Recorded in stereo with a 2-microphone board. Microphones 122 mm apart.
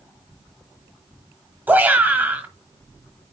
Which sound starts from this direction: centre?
A shout, at 1.7 s.